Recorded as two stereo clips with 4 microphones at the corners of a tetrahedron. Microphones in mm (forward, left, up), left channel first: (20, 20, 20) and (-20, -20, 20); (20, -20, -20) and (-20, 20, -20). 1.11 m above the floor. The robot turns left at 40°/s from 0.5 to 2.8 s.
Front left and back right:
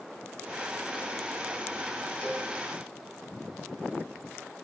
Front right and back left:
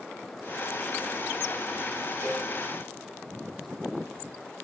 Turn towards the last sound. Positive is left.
turn(degrees=90)